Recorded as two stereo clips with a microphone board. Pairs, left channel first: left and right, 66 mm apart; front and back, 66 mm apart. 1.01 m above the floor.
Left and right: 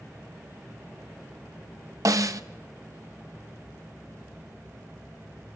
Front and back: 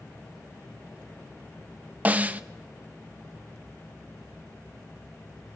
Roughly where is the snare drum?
Behind right.